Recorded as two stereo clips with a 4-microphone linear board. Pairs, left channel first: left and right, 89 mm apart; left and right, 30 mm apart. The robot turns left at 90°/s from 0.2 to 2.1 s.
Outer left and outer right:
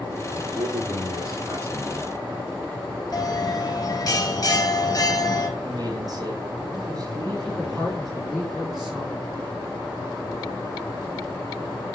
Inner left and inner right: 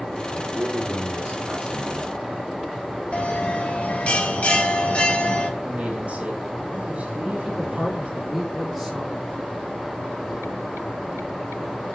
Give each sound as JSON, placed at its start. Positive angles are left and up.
{"t": 0.3, "sound": "a man speaking", "azimuth_deg": -30, "distance_m": 4.5}
{"t": 3.1, "sound": "a bell", "side_deg": 45, "distance_m": 2.0}
{"t": 5.6, "sound": "a man speaking", "side_deg": -45, "distance_m": 3.0}
{"t": 7.4, "sound": "a woman speaking", "side_deg": 10, "distance_m": 4.0}